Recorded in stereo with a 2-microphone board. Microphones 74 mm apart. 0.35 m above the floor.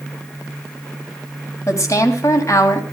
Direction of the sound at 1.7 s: 40° left (ahead or behind).